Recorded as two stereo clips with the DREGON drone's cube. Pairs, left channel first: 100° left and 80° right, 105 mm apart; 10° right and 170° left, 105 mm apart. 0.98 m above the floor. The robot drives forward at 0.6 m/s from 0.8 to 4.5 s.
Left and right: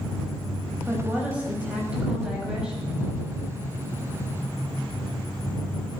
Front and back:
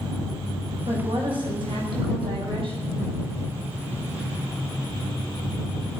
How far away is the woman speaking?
About 5.5 m.